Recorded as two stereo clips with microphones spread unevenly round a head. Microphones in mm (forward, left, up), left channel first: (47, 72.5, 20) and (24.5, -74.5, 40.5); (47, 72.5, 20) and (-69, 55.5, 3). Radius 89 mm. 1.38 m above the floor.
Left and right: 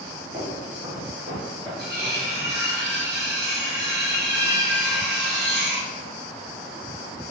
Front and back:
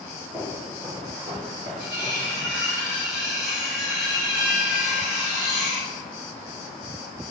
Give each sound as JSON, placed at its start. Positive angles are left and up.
{"t": 0.3, "sound": "footsteps", "azimuth_deg": -95, "distance_m": 1.7}
{"t": 1.8, "sound": "cutlery clinking", "azimuth_deg": -95, "distance_m": 1.4}